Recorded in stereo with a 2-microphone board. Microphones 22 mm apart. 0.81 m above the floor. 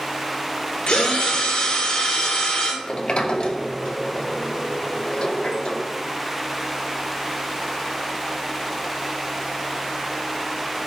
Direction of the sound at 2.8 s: 50° left (ahead or behind).